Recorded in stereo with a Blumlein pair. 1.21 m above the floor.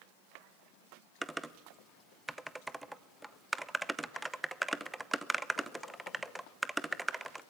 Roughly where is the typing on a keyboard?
Ahead.